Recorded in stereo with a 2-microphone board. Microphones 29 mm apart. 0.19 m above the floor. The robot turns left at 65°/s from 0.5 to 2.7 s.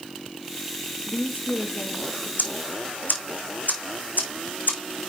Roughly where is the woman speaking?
Behind left.